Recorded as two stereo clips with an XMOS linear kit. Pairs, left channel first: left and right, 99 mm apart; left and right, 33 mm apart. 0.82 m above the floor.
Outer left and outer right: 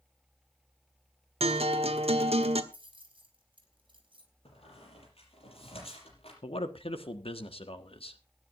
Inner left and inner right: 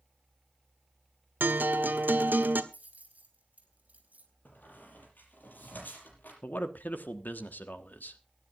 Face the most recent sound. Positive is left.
turn(degrees=70)  # may be behind; listen again after turning